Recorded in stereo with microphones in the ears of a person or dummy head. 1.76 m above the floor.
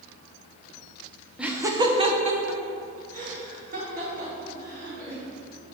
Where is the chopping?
No chopping in this recording.